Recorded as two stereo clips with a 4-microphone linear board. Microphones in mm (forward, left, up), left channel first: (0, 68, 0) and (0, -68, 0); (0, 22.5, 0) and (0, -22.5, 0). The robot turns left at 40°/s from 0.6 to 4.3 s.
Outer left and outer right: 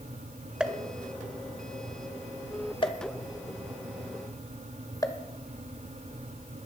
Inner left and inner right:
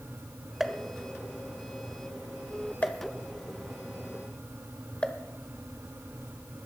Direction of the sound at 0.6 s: 5° right (ahead or behind).